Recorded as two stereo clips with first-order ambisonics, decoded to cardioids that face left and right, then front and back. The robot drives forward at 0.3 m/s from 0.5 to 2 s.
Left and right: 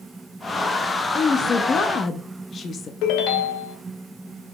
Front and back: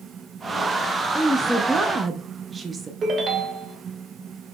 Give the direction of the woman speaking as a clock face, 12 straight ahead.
10 o'clock.